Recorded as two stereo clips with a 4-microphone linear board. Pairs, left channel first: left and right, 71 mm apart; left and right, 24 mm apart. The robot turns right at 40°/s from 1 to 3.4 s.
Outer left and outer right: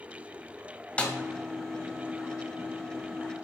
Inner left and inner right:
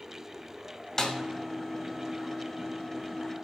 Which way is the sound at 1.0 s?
15° left (ahead or behind).